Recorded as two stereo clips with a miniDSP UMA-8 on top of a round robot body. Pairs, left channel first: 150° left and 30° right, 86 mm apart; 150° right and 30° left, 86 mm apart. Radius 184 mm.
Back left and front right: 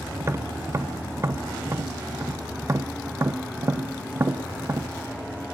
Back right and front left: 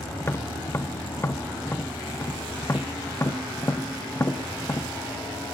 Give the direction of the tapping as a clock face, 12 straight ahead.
3 o'clock.